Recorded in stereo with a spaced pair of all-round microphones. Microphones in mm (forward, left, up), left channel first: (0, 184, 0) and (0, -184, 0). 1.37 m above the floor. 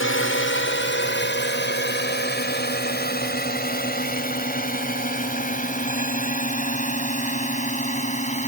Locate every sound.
0.0 s a drone: 30° left (ahead or behind); by 8.5 s 20° left (ahead or behind)